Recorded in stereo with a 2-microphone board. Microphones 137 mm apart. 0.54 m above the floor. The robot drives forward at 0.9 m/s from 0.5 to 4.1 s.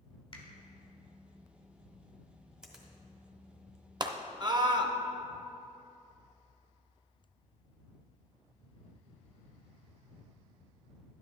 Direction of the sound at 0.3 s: 40° left (ahead or behind).